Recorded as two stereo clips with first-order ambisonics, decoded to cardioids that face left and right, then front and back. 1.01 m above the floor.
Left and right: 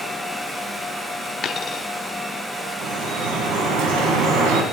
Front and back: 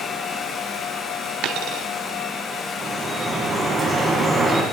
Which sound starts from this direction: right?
Dripping, at 2.8 s.